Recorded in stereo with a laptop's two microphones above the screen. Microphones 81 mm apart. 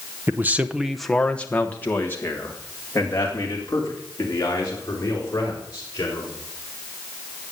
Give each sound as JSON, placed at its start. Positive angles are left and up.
{"t": 0.3, "sound": "a man speaking", "side_deg": -30, "distance_m": 0.8}